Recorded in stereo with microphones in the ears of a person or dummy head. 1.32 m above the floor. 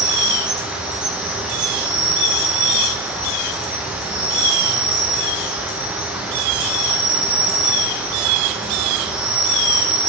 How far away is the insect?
About 0.9 m.